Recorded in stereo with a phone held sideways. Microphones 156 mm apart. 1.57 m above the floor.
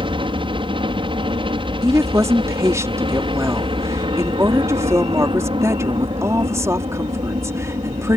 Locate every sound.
0.0 s a helicopter: 35° right (ahead or behind)
1.8 s a woman speaking: 20° right (ahead or behind)